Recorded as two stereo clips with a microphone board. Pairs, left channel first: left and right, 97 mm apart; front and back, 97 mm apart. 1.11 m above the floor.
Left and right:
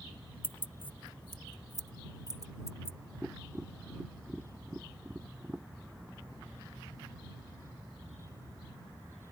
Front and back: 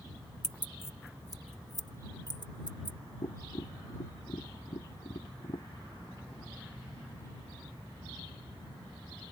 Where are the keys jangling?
85° left; by 3.0 s 35° left.